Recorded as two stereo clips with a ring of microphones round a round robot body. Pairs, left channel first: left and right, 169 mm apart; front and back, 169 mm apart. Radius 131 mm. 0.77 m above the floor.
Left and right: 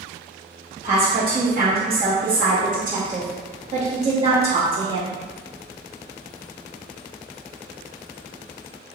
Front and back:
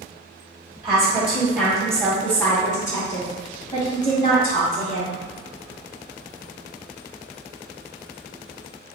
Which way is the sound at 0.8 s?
110° right.